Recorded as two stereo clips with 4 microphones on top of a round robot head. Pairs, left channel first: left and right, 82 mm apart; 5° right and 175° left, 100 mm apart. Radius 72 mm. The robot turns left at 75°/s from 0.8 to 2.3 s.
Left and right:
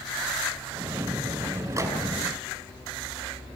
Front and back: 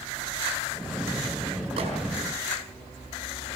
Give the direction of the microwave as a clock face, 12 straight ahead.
5 o'clock.